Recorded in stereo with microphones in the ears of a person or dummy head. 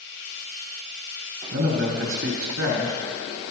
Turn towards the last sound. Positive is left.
turn(degrees=-80)